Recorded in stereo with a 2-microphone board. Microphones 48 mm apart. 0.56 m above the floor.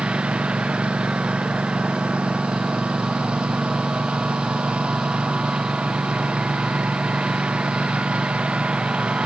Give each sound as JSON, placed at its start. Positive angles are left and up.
{"t": 0.0, "sound": "a lawn mower", "side_deg": -25}